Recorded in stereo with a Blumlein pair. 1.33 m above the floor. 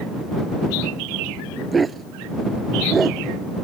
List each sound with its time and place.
1.7 s a dog barking: 15° right